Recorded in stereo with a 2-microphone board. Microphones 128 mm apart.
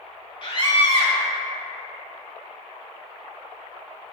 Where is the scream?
40° left (ahead or behind), 1.9 m.